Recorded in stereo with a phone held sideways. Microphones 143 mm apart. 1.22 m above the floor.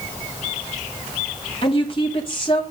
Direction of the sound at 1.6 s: 40° left (ahead or behind).